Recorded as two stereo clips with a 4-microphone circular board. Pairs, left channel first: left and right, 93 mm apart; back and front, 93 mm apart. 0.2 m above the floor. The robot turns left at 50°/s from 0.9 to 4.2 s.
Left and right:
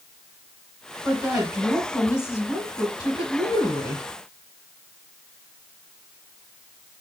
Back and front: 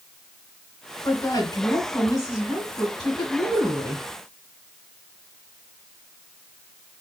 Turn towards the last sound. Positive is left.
turn(degrees=45)